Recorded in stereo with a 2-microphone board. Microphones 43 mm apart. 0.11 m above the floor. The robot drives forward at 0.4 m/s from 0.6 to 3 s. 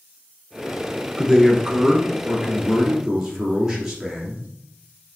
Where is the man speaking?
15° right (ahead or behind), 1.4 m; by 4.5 s 10° right (ahead or behind), 1.9 m.